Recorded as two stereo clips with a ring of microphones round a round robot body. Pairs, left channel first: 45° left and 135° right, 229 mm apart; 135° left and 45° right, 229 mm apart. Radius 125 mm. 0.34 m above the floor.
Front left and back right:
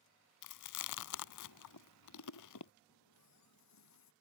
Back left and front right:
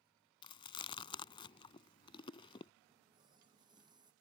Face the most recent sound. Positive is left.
turn(degrees=30)